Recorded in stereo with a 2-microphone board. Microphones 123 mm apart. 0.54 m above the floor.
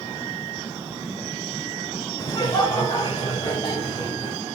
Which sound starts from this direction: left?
Laughter, at 2.2 s.